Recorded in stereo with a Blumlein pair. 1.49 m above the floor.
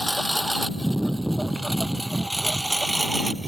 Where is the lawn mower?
Straight ahead; by 3.5 s 5° right.